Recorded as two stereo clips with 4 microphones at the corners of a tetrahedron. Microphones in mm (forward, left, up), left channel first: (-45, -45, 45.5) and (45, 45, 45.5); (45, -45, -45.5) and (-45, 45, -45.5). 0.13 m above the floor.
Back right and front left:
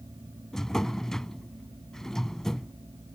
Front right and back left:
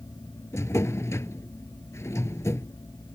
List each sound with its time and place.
0.5 s a drawer: 55° right